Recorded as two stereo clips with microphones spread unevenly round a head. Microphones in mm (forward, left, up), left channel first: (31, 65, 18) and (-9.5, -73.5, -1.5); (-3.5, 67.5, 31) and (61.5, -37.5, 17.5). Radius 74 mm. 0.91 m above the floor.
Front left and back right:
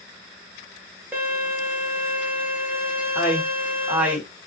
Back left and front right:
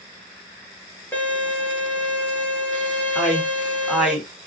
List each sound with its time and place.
1.1 s a violin: 165° right, 0.8 m
3.1 s a man speaking: 125° right, 0.9 m